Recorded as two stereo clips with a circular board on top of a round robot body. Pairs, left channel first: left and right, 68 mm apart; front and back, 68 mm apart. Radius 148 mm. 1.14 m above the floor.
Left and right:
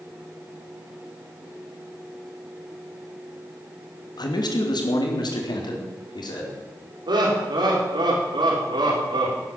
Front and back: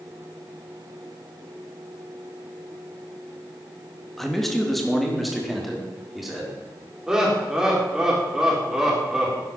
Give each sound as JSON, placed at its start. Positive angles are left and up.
{"t": 4.2, "sound": "a man speaking", "azimuth_deg": 85, "distance_m": 2.5}
{"t": 7.1, "sound": "laughter", "azimuth_deg": -100, "distance_m": 5.0}